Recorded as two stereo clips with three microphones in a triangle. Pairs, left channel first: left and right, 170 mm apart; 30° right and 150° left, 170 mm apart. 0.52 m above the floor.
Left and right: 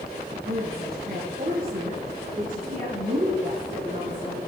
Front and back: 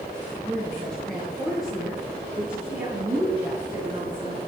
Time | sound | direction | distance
0.5 | a woman speaking | 110° right | 7 m